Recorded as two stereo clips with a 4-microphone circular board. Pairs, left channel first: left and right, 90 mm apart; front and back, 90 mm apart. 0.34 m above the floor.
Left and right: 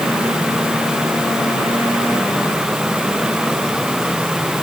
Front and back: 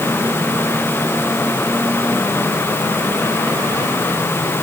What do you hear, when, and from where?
Only background noise.